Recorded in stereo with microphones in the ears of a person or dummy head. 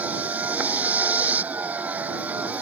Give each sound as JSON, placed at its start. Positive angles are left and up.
{"t": 0.0, "sound": "a vehicle", "side_deg": -5}